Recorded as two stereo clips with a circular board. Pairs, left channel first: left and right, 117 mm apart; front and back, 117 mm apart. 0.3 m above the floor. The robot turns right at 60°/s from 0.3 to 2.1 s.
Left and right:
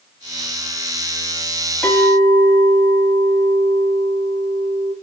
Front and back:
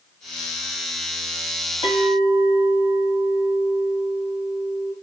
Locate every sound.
1.8 s a clink: 15° left, 1.6 m; by 4.9 s 30° left, 1.6 m